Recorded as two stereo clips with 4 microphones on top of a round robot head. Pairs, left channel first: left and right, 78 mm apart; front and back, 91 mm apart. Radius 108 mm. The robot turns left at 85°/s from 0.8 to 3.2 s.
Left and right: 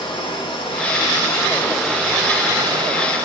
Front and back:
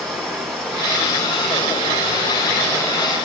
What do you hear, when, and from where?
0.0 s running water: 85° left, 5.5 m; by 3.2 s 115° right, 5.5 m